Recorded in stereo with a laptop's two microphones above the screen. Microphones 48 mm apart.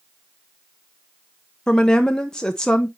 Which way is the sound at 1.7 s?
15° left (ahead or behind).